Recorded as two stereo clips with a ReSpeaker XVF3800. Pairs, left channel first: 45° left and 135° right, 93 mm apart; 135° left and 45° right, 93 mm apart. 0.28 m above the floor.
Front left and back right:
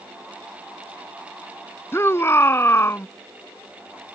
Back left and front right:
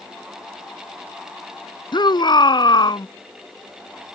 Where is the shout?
105° left.